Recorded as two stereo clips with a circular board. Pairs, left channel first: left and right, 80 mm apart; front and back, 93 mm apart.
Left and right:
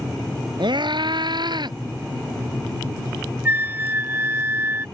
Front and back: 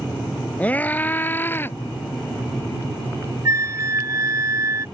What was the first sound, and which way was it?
A scream, 75° right.